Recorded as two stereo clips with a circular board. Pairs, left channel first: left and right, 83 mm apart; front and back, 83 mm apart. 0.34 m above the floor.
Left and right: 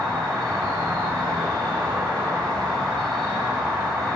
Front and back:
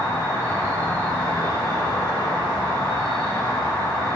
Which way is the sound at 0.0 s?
50° right.